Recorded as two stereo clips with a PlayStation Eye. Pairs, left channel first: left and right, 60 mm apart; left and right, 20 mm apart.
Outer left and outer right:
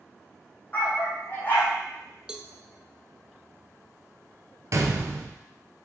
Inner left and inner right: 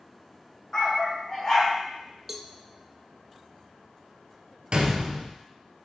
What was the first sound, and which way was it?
A dog barking, 25° left (ahead or behind).